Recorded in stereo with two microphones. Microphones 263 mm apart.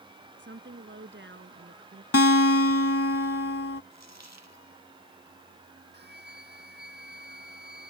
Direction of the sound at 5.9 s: 40° right (ahead or behind).